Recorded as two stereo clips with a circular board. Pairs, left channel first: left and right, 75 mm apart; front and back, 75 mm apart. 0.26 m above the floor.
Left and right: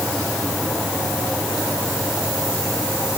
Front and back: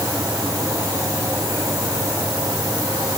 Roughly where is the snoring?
No snoring in this recording.